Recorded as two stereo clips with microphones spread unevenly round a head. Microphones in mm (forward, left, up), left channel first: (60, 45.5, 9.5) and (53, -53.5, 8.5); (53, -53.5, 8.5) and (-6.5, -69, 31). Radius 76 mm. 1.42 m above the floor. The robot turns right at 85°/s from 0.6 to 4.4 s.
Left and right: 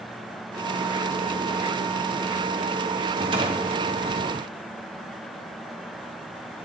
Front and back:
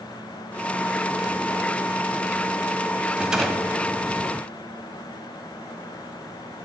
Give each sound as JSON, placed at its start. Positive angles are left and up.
{"t": 3.1, "sound": "a rattle", "azimuth_deg": -125, "distance_m": 1.7}